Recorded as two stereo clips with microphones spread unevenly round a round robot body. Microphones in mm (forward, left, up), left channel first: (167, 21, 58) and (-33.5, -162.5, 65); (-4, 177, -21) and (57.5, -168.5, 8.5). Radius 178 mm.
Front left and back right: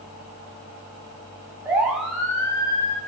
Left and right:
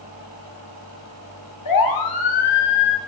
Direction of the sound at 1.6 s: 140° left.